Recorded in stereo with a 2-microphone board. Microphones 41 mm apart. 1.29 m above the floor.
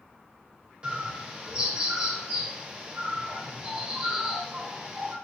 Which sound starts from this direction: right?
A bird, at 0.8 s.